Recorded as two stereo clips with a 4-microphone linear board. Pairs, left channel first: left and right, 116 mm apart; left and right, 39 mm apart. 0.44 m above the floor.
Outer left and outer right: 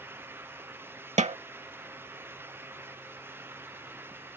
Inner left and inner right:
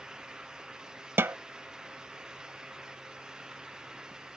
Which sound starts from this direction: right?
A snare drum, at 1.2 s.